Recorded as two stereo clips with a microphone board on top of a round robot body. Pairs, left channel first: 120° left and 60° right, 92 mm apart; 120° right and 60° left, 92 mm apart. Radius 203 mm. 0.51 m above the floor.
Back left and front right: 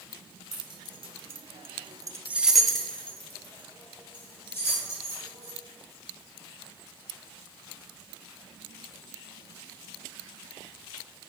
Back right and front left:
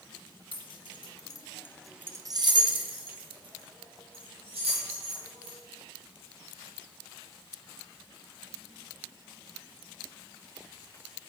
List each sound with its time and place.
0.5 s keys jangling: 95° right, 1.3 m; by 5.6 s 60° left, 3 m